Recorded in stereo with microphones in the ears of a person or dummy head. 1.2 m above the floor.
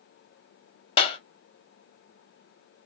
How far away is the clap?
About 1.5 m.